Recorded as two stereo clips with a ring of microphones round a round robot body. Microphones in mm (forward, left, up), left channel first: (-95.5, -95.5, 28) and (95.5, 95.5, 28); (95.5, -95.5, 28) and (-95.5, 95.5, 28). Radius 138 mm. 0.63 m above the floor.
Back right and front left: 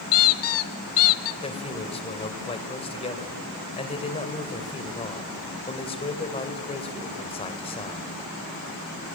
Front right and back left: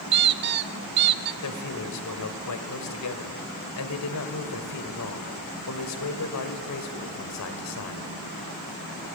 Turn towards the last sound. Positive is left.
turn(degrees=-65)